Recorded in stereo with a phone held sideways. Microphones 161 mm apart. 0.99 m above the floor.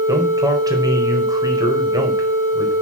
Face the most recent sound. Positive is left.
turn(degrees=-25)  # may be behind; listen again after turning